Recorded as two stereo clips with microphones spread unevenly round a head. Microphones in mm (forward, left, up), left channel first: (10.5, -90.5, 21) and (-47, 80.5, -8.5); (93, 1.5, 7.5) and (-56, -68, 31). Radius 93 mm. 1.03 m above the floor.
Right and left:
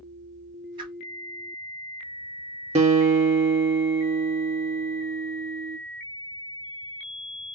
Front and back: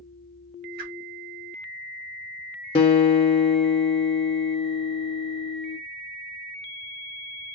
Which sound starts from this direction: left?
A guitar, at 2.8 s.